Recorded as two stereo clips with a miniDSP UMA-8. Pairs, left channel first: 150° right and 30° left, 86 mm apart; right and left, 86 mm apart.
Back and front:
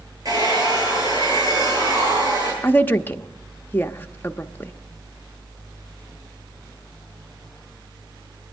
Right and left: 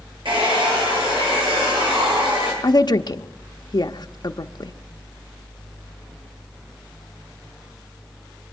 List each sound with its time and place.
0.2 s a hair dryer: 75° left, 10 m
2.6 s a woman speaking: 90° right, 0.7 m